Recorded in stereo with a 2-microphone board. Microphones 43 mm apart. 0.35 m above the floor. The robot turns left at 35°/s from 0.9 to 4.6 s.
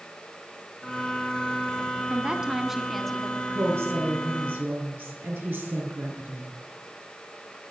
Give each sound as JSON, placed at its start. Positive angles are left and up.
{"t": 2.1, "sound": "a woman speaking", "azimuth_deg": -150, "distance_m": 3.5}
{"t": 3.5, "sound": "a woman speaking", "azimuth_deg": -80, "distance_m": 6.5}